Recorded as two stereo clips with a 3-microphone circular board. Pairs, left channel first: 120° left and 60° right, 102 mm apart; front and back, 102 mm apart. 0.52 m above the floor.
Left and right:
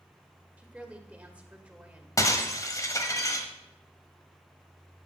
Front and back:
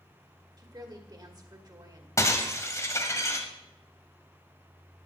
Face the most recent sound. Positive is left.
turn(degrees=60)